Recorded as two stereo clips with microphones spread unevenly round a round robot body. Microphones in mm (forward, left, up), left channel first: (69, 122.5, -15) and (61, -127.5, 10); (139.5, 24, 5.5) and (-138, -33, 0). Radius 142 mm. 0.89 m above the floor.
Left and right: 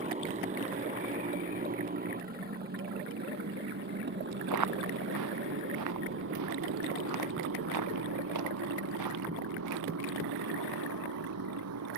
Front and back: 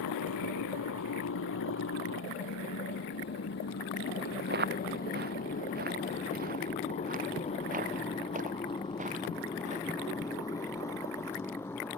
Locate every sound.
0.0 s a motorcycle: 30° right; by 12.0 s 70° right
4.5 s footsteps: 115° right; by 9.8 s 100° right